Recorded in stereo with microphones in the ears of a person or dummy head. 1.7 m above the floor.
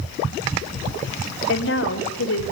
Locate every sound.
1.5 s a woman speaking: 85° left, 3 m